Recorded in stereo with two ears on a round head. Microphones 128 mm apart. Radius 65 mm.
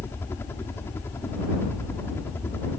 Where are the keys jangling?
I don't hear keys jangling.